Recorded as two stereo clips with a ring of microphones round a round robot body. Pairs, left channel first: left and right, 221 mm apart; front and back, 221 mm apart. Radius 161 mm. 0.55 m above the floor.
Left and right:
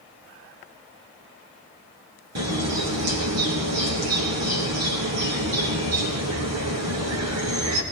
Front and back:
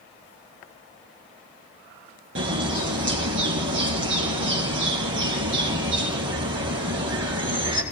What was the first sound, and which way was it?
A bird, 125° right.